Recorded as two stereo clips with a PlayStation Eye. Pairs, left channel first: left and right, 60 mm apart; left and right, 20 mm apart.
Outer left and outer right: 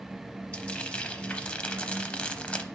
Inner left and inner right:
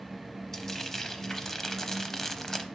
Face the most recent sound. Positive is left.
turn(degrees=20)  # may be behind; listen again after turning